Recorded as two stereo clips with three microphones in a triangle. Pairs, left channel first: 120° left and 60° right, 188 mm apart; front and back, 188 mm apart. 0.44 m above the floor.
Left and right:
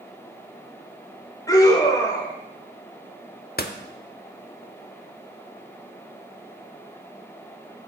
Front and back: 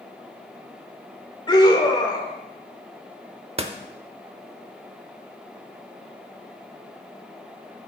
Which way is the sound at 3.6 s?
130° left.